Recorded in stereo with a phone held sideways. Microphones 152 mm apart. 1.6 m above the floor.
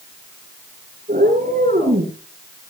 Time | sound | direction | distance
1.1 | a cat meowing | 75° right (ahead or behind) | 9.5 m